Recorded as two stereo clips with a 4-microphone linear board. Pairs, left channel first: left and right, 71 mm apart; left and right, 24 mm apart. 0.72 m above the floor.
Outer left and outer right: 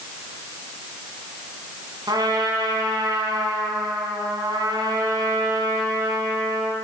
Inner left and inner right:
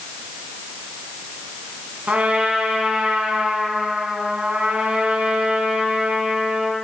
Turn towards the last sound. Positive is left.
turn(degrees=-75)  # may be behind; listen again after turning